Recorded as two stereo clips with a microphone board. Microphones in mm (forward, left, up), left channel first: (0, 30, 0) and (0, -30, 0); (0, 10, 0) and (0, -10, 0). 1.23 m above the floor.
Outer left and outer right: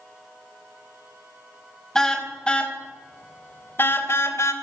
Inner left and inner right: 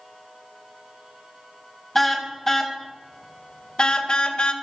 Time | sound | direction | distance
1.9 | a car horn | 10° left (ahead or behind) | 4 m